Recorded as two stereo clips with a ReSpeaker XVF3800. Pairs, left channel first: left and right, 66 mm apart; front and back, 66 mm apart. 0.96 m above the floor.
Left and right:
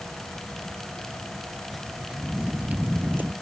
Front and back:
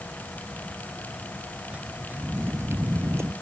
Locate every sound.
1.7 s footsteps: 175° left; by 3.3 s 145° right